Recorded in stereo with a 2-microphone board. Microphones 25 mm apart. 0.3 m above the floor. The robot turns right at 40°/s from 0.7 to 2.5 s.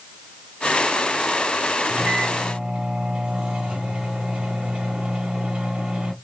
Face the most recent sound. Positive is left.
turn(degrees=-50)  # may be behind; listen again after turning